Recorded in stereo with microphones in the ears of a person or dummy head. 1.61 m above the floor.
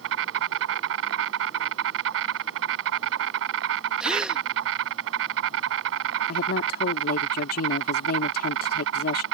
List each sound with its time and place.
0.0 s an insect: 70° right (ahead or behind)
4.0 s a gasp: 10° right (ahead or behind)
6.3 s a woman speaking: 60° left (ahead or behind)